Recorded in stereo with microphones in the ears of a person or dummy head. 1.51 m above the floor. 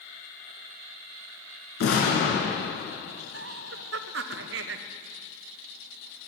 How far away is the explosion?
About 3.5 m.